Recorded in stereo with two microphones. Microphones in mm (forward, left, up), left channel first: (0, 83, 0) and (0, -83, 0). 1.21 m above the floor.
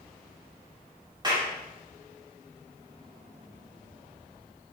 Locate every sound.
1.2 s a clap: 25° right (ahead or behind), 2.5 m